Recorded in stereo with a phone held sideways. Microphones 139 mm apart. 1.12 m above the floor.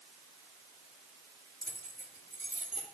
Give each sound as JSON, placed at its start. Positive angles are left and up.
{"t": 1.6, "sound": "keys jangling", "side_deg": -90, "distance_m": 1.8}